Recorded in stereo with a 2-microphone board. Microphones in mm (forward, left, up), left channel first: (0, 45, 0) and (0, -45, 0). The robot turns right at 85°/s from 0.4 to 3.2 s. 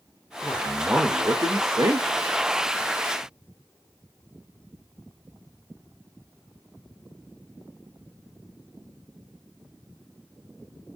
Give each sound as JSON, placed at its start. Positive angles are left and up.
{"t": 0.4, "sound": "a man speaking", "azimuth_deg": 155, "distance_m": 0.7}